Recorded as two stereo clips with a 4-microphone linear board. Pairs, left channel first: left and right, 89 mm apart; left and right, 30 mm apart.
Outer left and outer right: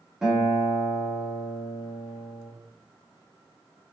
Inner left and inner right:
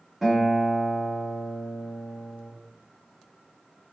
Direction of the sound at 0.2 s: 5° right (ahead or behind).